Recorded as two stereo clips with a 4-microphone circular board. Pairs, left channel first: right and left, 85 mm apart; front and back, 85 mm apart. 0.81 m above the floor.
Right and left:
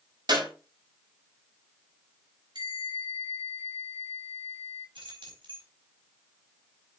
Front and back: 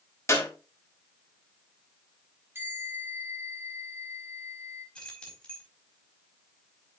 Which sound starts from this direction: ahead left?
A clap, at 0.3 s.